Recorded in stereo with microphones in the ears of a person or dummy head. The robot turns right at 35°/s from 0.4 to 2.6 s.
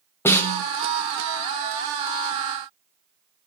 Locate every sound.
0.2 s a snare drum: 15° left (ahead or behind), 1.2 m; by 0.6 s 5° left (ahead or behind), 1.2 m